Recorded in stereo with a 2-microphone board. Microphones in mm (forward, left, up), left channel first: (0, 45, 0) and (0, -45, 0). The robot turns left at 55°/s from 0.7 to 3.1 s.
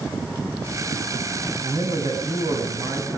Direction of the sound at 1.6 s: 50° right.